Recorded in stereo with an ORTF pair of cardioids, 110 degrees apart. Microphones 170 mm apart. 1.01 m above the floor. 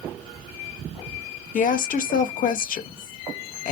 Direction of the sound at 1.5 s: 55° left.